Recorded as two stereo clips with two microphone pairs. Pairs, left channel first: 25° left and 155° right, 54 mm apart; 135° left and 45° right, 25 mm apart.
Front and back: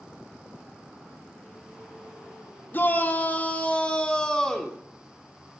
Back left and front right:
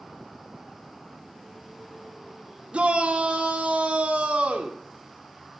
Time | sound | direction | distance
2.7 | a shout | 20° right | 2.5 m